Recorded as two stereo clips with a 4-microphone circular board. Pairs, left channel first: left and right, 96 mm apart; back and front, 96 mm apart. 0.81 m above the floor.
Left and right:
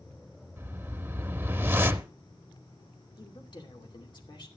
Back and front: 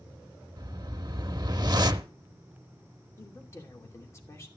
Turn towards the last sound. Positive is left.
turn(degrees=120)